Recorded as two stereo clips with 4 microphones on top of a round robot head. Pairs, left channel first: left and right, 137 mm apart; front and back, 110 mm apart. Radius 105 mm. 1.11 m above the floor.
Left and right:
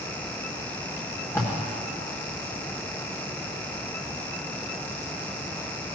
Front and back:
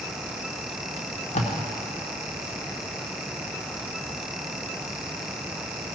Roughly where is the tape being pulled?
Ahead.